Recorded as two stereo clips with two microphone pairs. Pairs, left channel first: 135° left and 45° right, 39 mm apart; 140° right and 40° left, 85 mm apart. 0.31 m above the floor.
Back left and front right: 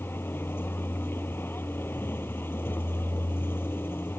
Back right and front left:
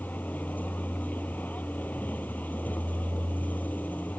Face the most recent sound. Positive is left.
turn(degrees=150)